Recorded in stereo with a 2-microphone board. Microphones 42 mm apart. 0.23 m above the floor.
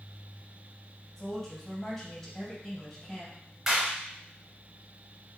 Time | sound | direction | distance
1.2 | a woman speaking | 15° left (ahead or behind) | 1.5 m
3.7 | a clap | 10° right (ahead or behind) | 2.0 m